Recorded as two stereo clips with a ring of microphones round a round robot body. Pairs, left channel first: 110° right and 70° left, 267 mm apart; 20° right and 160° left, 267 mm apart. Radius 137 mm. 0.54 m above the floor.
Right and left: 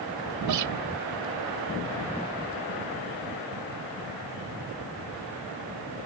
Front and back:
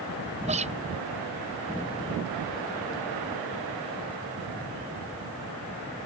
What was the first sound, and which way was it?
A guitar, 90° left.